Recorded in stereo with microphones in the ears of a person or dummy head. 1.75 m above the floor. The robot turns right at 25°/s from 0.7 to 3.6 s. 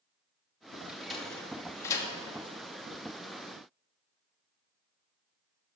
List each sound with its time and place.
0.9 s a sliding door: 10° right (ahead or behind), 1.3 m; by 2.1 s 20° left (ahead or behind), 1.3 m